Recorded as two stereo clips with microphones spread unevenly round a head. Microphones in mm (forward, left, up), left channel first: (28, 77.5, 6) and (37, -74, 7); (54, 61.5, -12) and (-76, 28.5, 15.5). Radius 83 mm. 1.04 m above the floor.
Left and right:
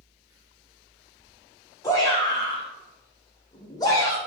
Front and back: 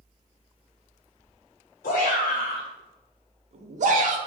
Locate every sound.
1.8 s a shout: 20° left, 1.2 m; by 4.2 s 170° left, 1.2 m